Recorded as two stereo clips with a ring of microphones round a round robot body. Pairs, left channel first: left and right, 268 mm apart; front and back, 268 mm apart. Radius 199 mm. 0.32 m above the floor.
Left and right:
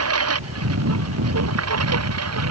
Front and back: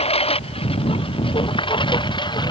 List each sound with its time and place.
0.0 s a lawn mower: 65° right; by 2.5 s 75° right